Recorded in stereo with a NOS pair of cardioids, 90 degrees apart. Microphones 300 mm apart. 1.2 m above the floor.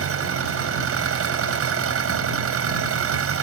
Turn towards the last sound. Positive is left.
turn(degrees=-50)